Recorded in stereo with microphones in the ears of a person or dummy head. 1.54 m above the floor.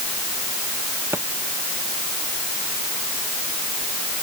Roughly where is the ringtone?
I don't hear a ringtone.